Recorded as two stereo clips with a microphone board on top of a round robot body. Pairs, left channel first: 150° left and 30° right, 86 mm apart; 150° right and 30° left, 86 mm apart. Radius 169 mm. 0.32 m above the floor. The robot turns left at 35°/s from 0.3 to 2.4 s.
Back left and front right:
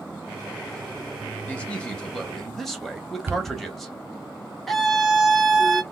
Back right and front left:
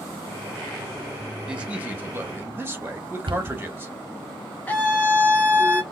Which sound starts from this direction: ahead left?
A cupboard door, at 3.3 s.